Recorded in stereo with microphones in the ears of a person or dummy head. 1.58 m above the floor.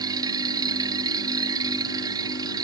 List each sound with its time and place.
0.0 s a machine running: 15° right (ahead or behind)